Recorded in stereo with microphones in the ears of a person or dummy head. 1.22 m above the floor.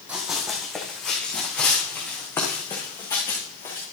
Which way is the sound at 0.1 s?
5° right (ahead or behind).